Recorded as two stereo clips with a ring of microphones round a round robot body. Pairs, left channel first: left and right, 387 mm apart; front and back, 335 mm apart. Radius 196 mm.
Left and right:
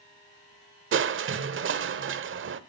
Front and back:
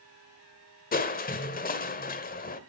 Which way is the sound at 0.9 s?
50° right.